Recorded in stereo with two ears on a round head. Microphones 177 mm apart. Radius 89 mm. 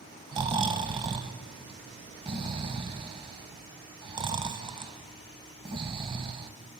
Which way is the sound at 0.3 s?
25° right (ahead or behind).